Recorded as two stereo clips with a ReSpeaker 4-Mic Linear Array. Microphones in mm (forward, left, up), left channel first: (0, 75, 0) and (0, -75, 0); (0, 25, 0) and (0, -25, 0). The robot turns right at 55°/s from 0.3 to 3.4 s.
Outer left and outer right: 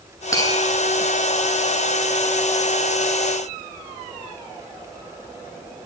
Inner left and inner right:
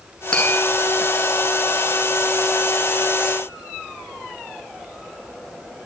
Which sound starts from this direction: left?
Tapping, at 0.3 s.